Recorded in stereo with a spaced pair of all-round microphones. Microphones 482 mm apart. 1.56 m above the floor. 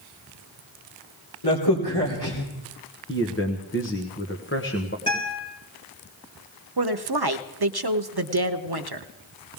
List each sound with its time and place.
1.4 s a crack: 55° left (ahead or behind), 3 m
3.1 s a man speaking: 25° left (ahead or behind), 1.2 m
5.1 s a guitar: 10° left (ahead or behind), 4 m
6.8 s a woman speaking: 50° right (ahead or behind), 0.7 m